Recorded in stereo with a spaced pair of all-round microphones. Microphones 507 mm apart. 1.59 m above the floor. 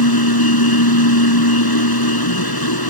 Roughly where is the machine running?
Left.